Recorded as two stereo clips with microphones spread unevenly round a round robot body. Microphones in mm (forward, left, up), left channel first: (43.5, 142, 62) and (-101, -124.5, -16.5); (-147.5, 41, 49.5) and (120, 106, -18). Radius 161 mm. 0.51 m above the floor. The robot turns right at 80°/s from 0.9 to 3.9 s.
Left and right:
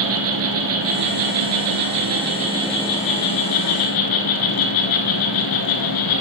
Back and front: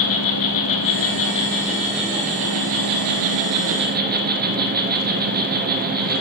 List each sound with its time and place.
0.0 s an insect: 165° right, 1.5 m; by 6.2 s 75° left, 1.5 m